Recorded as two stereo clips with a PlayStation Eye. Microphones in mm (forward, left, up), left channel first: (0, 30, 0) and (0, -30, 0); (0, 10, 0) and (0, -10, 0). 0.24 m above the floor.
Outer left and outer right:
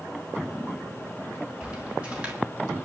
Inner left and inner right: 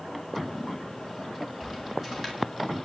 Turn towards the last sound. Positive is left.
turn(degrees=-20)  # may be behind; listen again after turning